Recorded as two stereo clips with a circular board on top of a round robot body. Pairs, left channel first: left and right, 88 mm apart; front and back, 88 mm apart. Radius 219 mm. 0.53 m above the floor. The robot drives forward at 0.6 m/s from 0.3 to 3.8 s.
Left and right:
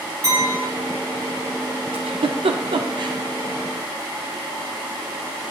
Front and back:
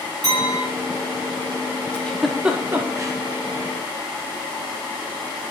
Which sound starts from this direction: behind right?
A clink, at 0.2 s.